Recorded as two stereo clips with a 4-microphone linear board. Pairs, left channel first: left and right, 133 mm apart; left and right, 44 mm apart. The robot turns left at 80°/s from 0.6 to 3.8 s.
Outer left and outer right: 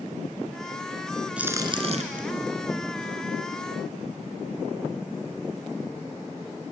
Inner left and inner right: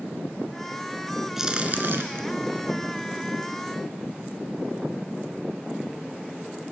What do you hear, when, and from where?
1.4 s a crack: 10° right (ahead or behind), 2.5 m; by 2.2 s 75° right (ahead or behind), 2.5 m